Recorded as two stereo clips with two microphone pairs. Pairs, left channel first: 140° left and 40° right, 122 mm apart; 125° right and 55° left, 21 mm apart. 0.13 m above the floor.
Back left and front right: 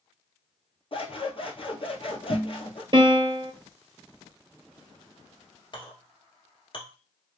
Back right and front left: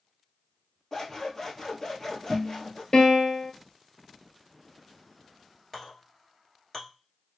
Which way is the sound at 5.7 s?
175° left.